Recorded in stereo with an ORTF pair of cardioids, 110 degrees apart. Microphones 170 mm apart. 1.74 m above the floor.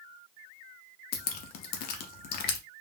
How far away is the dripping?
About 0.7 m.